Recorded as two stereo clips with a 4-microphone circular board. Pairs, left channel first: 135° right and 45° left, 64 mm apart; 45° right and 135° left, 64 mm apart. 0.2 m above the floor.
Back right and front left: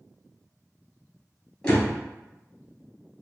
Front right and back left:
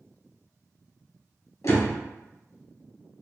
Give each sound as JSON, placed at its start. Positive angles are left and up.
{"t": 1.6, "sound": "a door slam", "azimuth_deg": -60, "distance_m": 2.0}